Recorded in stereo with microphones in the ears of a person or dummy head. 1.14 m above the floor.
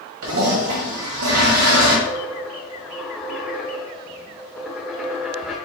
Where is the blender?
I don't hear a blender.